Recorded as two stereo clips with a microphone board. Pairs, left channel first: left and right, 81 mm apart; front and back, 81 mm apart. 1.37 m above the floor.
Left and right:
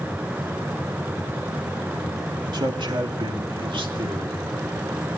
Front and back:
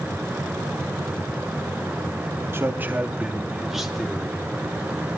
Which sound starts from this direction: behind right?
A man speaking, at 2.5 s.